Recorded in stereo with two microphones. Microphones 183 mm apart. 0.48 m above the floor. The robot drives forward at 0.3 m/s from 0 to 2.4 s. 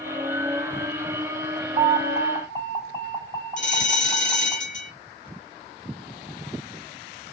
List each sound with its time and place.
1.8 s an alarm: 15° right (ahead or behind), 2.0 m
3.6 s a bell: 45° left (ahead or behind), 1.3 m